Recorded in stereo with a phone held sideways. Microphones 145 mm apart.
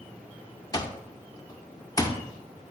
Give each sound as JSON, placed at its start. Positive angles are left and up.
{"t": 0.7, "sound": "an alarm clock", "side_deg": 25, "distance_m": 0.6}